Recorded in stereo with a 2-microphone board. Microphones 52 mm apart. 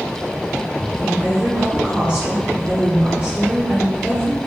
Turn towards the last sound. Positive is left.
turn(degrees=-30)  # may be behind; listen again after turning